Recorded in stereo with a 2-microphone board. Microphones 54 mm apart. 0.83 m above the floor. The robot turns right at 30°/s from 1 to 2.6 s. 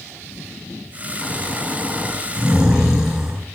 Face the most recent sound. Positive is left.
turn(degrees=-165)